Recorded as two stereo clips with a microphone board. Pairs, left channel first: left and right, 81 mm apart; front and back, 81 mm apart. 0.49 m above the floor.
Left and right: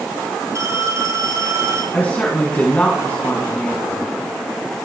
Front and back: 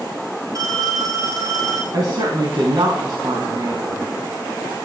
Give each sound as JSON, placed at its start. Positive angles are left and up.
{"t": 0.6, "sound": "a phone ringing", "azimuth_deg": -140, "distance_m": 8.0}
{"t": 1.9, "sound": "a woman speaking", "azimuth_deg": 155, "distance_m": 3.5}